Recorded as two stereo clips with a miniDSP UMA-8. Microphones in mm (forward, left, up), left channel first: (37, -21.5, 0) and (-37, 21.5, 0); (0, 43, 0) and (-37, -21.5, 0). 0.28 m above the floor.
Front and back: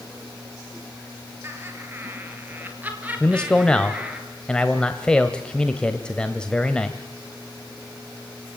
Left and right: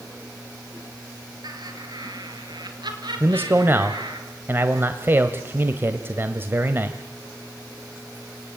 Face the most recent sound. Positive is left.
turn(degrees=-100)